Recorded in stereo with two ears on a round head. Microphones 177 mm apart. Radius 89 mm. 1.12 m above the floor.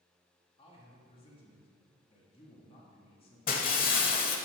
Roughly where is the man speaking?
Left.